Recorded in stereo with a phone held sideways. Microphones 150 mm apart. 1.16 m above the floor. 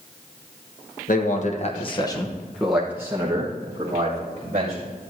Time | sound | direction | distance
1.1 | a man speaking | 60° left (ahead or behind) | 1.4 m